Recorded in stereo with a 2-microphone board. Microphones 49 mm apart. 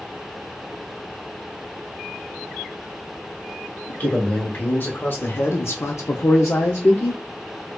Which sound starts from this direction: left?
A man speaking, at 3.9 s.